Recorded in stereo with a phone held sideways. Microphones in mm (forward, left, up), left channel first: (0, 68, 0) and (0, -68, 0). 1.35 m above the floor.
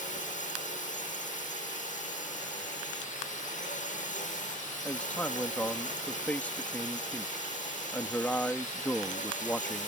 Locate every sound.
0.0 s a drone: 70° left (ahead or behind)
4.8 s a man speaking: 10° left (ahead or behind)